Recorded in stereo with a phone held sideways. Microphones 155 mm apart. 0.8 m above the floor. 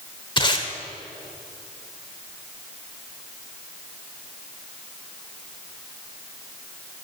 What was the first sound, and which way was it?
Tape being pulled, 30° left (ahead or behind).